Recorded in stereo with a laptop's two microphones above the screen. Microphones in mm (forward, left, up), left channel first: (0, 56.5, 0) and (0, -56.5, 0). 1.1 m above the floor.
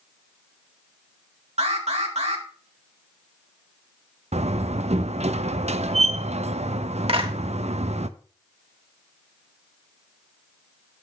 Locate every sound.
1.6 s an alarm: 75° right (ahead or behind), 1.8 m
4.3 s a door slam: 75° right (ahead or behind), 0.5 m
7.1 s a clap: 60° right (ahead or behind), 1.5 m